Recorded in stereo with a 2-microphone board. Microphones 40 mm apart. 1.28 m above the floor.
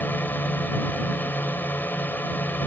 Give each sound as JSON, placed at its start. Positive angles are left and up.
{"t": 0.0, "sound": "a drone", "side_deg": 55}